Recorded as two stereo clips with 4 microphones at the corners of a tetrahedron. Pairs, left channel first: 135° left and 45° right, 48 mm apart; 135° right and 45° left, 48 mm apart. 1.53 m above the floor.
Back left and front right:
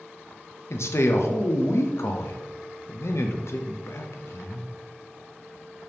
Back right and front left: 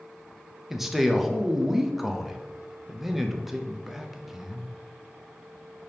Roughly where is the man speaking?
Behind left.